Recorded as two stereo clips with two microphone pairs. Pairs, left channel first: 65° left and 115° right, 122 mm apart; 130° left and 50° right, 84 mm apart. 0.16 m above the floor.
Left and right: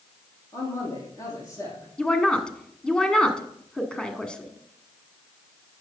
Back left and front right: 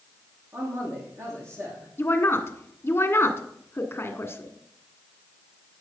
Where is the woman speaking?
140° left, 1.4 m.